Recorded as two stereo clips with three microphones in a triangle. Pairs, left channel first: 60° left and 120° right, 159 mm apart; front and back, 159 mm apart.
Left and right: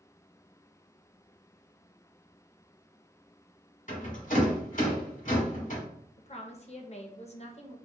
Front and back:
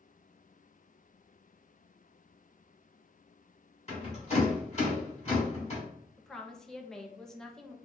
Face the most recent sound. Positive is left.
turn(degrees=85)